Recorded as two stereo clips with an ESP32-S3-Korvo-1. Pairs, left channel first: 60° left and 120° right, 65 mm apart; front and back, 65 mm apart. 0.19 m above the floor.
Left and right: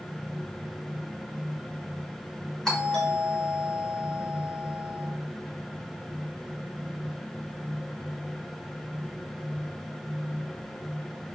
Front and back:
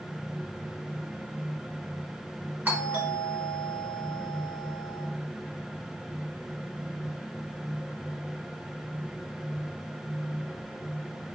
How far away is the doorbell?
About 2.5 m.